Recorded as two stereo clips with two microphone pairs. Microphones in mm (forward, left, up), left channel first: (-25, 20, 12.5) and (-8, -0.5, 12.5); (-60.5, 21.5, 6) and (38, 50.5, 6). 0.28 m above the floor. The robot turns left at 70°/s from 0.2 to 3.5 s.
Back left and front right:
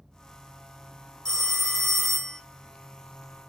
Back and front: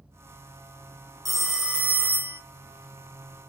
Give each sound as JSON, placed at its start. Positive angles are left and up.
{"t": 1.2, "sound": "a phone ringing", "azimuth_deg": 110, "distance_m": 0.8}